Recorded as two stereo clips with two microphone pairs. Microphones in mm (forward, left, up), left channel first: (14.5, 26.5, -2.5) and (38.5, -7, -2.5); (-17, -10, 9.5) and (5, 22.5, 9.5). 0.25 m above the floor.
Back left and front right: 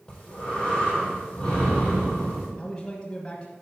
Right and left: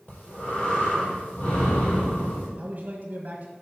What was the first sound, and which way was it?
Breathing, 170° right.